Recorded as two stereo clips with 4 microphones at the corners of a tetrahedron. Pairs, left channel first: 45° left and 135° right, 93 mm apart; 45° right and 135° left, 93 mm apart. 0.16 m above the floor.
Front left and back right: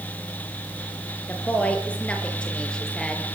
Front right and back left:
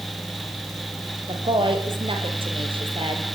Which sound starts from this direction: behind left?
A woman speaking, at 1.3 s.